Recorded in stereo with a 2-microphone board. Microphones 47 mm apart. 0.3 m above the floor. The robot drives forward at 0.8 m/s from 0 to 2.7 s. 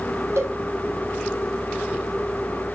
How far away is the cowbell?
About 3 m.